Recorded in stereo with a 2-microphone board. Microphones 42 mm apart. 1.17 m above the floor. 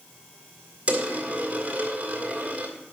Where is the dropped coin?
40° right (ahead or behind), 1.7 m.